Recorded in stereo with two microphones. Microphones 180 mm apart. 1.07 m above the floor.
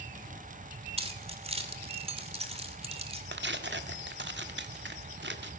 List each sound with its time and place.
1.0 s keys jangling: 35° right (ahead or behind), 2.5 m
3.3 s tearing paper: 80° right, 1.7 m